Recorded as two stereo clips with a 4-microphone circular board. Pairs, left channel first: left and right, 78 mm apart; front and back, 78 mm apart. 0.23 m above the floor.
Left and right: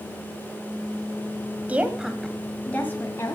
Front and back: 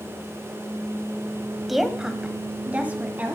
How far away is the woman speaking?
About 1.2 m.